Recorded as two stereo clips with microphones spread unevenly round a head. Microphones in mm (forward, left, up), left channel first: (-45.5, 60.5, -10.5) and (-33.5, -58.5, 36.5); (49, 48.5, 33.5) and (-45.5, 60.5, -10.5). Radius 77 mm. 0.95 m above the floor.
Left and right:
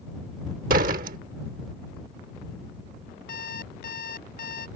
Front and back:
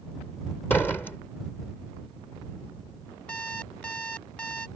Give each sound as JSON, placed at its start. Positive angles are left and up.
{"t": 0.7, "sound": "a door slam", "azimuth_deg": -85}
{"t": 3.3, "sound": "an alarm clock", "azimuth_deg": 60}